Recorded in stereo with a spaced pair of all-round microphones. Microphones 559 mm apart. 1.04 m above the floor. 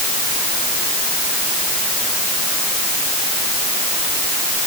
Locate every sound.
Only background noise.